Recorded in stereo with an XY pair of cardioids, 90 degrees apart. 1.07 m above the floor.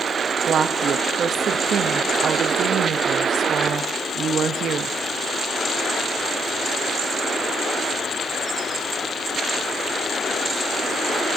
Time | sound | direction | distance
0.5 | a woman speaking | 65° right | 0.9 m